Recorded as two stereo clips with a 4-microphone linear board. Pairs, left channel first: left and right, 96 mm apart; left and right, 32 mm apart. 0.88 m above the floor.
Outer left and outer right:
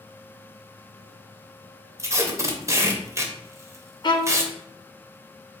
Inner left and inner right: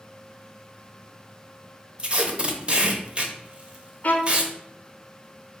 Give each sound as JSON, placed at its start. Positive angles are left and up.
{"t": 2.0, "sound": "tape being pulled", "side_deg": -30, "distance_m": 0.6}
{"t": 4.0, "sound": "a violin", "side_deg": 50, "distance_m": 0.6}